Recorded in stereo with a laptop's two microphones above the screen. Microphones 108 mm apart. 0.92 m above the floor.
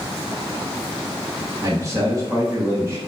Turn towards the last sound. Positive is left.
turn(degrees=-30)  # may be behind; listen again after turning